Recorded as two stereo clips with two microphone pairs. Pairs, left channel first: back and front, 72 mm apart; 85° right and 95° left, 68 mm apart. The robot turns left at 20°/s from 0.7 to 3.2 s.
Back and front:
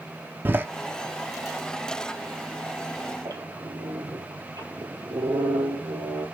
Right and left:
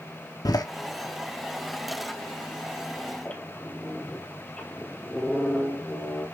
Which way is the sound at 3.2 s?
15° right.